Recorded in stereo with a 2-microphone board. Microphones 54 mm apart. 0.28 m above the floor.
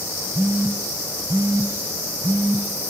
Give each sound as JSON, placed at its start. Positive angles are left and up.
{"t": 0.3, "sound": "a phone buzzing", "side_deg": -45, "distance_m": 1.2}